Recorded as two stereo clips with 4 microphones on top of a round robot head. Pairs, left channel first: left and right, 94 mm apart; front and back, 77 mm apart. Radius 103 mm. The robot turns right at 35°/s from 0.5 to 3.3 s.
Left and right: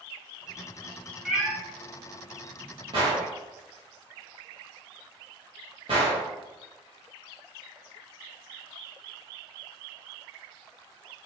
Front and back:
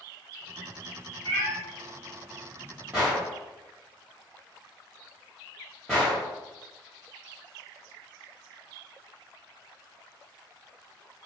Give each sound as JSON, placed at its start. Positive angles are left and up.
{"t": 1.2, "sound": "a cat meowing", "azimuth_deg": -175, "distance_m": 0.9}
{"t": 2.9, "sound": "a gunshot", "azimuth_deg": -105, "distance_m": 1.3}